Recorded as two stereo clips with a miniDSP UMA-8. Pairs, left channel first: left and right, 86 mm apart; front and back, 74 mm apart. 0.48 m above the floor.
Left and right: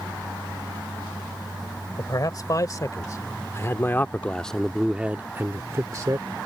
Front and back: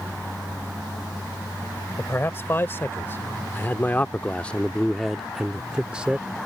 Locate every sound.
2.0 s a man speaking: 55° left; by 6.4 s 110° right